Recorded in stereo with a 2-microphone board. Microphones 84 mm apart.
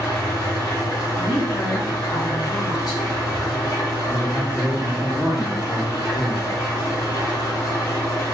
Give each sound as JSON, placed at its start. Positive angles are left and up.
{"t": 0.0, "sound": "an engine running", "side_deg": 45, "distance_m": 1.3}
{"t": 1.1, "sound": "a woman speaking", "side_deg": 55, "distance_m": 1.4}
{"t": 4.1, "sound": "a man speaking", "side_deg": 55, "distance_m": 1.8}